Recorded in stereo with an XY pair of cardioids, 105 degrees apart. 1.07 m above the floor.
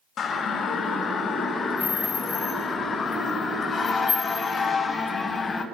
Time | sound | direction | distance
0.2 | a siren | 55° left | 6 m